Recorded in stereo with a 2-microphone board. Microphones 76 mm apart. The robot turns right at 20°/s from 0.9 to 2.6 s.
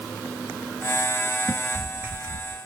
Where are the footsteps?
10° left (ahead or behind), 0.9 m; by 2.6 s 50° right (ahead or behind), 1.0 m.